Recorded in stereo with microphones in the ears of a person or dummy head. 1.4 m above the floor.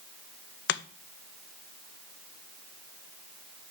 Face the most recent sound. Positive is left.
turn(degrees=55)  # may be behind; listen again after turning